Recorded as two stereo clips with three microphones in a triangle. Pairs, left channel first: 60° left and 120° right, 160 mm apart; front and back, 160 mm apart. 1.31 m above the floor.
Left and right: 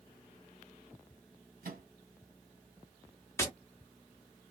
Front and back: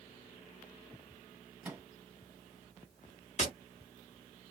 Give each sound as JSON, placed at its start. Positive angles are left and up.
{"t": 1.6, "sound": "a microwave", "azimuth_deg": -100, "distance_m": 1.3}
{"t": 3.4, "sound": "tapping", "azimuth_deg": -5, "distance_m": 1.2}